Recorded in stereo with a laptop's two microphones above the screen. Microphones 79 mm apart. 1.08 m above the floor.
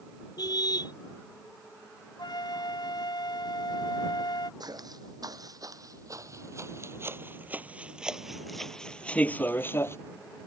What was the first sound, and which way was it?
A car horn, 60° left (ahead or behind).